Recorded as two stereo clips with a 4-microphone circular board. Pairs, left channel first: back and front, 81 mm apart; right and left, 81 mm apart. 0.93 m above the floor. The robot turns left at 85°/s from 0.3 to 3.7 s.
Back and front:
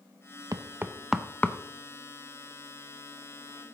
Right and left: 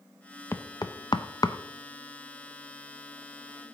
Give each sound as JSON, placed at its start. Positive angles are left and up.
{"t": 0.5, "sound": "knocking", "azimuth_deg": -35, "distance_m": 0.6}